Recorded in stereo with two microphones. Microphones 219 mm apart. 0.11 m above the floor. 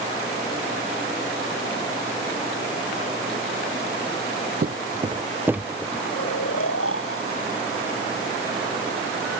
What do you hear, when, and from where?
4.6 s footsteps: 45° right (ahead or behind); by 6.0 s centre (ahead or behind)
6.1 s snoring: 85° left